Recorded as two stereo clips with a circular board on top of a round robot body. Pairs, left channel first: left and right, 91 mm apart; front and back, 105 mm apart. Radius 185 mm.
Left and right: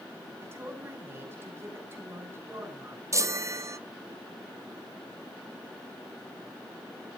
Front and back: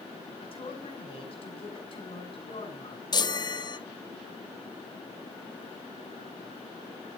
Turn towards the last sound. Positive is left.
turn(degrees=-40)